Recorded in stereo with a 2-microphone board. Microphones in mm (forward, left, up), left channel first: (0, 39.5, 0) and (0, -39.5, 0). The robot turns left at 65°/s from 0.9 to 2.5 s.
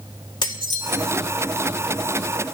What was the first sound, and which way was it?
Dishes clattering, 65° left (ahead or behind).